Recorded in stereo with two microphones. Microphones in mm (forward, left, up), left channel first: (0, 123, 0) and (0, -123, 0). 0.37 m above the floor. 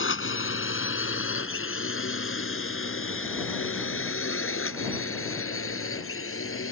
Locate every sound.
0.0 s a drone: 55° left (ahead or behind); by 6.7 s 60° left (ahead or behind)